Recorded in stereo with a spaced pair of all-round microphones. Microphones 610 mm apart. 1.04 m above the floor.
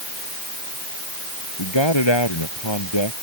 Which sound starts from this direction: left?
A man speaking, at 1.6 s.